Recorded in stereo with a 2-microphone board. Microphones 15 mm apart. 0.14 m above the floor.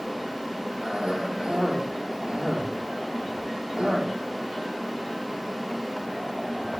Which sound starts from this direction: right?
A cough, at 0.8 s.